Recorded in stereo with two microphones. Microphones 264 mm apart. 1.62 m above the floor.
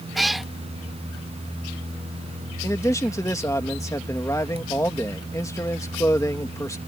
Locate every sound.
0.1 s a cat meowing: centre (ahead or behind)
2.6 s a man speaking: 10° left (ahead or behind)